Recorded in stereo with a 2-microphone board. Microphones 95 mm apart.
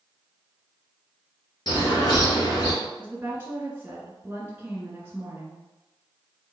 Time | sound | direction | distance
1.7 | a bird | 50° left (ahead or behind) | 1.9 m
3.0 | a woman speaking | 20° right (ahead or behind) | 1.3 m